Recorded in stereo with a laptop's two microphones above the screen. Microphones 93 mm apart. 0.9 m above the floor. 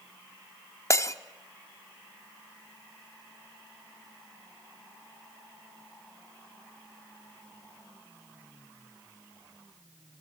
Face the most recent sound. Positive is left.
turn(degrees=35)  # may be behind; listen again after turning